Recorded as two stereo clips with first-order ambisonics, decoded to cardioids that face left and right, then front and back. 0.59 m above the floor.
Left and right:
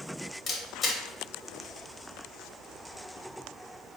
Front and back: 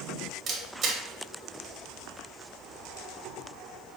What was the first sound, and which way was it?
A camera shutter, 140° left.